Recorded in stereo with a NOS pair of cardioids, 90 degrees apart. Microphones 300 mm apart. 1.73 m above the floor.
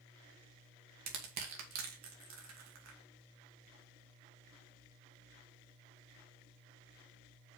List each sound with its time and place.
1.1 s crushing: 70° right, 2 m